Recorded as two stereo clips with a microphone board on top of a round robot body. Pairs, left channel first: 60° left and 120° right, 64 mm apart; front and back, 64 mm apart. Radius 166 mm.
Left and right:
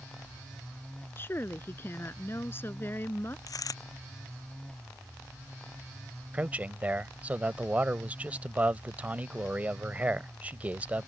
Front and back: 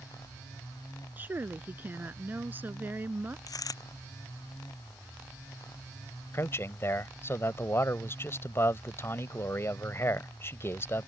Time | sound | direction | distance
1.2 | a woman speaking | 120° left | ?
3.5 | a dropped coin | 30° left | ?
6.3 | a man speaking | 50° right | ?